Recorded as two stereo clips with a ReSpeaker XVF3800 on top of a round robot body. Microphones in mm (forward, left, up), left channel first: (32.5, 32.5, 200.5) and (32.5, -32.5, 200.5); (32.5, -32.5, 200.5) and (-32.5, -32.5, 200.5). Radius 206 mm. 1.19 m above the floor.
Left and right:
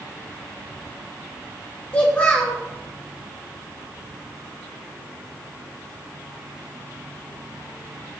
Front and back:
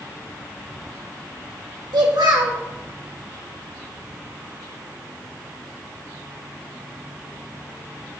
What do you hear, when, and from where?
1.9 s a child speaking: 160° left, 1.9 m